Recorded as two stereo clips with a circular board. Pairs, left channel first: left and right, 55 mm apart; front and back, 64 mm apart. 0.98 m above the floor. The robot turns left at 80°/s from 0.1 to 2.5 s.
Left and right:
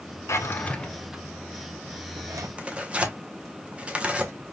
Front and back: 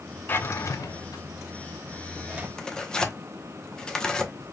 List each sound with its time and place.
0.3 s a drawer: 55° left, 0.7 m; by 2.5 s 120° right, 0.7 m
2.6 s tearing paper: 60° right, 0.7 m